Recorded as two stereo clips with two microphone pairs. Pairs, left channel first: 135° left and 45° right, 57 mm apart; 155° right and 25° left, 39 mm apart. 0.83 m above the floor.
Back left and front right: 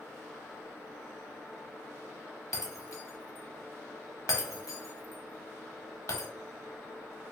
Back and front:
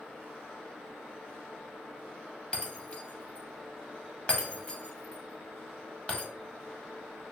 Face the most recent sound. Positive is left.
turn(degrees=145)